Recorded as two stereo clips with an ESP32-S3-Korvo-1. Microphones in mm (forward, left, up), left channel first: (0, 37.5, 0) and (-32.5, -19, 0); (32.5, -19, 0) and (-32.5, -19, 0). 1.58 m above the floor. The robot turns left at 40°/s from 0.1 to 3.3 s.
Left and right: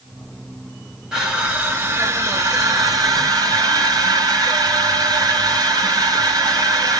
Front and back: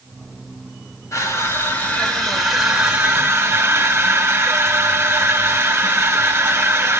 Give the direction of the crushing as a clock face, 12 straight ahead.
1 o'clock.